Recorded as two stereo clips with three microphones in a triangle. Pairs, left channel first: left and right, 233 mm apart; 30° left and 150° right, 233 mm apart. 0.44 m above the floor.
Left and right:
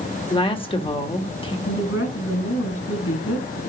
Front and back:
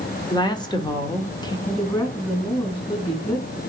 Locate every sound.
0.3 s a woman speaking: 70° left, 1.2 m
1.7 s a woman speaking: 95° left, 4.5 m